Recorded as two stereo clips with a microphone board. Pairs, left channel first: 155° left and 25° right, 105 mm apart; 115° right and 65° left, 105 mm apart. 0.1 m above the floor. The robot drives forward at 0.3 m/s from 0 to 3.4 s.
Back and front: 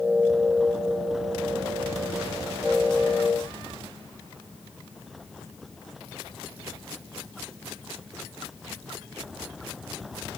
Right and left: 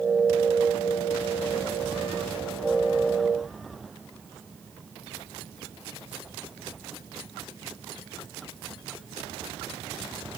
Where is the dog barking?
I don't hear a dog barking.